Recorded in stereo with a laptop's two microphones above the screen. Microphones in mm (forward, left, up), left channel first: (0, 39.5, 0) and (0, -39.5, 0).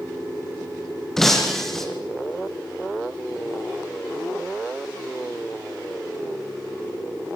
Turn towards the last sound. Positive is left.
turn(degrees=5)  # may be behind; listen again after turning